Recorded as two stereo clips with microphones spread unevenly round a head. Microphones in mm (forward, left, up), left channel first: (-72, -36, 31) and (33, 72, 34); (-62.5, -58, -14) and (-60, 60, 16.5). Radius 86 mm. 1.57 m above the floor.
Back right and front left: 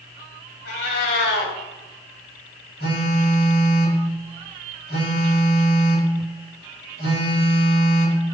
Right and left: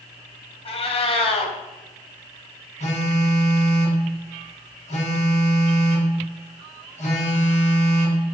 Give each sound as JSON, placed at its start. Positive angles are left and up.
{"t": 0.7, "sound": "a cat meowing", "azimuth_deg": -130, "distance_m": 3.5}
{"t": 2.8, "sound": "a phone buzzing", "azimuth_deg": -110, "distance_m": 6.5}